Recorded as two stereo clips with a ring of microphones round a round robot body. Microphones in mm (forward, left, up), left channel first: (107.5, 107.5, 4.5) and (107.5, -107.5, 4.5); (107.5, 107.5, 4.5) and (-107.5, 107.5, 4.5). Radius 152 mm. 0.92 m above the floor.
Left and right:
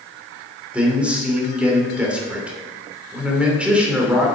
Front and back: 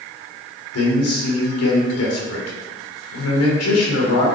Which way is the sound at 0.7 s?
5° right.